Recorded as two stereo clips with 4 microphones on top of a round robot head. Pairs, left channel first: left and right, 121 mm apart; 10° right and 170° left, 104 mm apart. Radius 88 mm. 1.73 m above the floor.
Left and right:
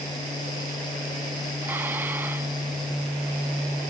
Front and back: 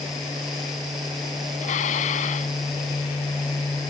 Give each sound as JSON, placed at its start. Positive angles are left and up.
{"t": 1.6, "sound": "dishes clattering", "azimuth_deg": -10}